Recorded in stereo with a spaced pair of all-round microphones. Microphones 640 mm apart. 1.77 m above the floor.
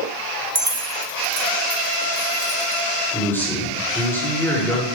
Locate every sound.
0.6 s keys jangling: 25° right (ahead or behind), 1.5 m
3.1 s a man speaking: 5° left (ahead or behind), 7 m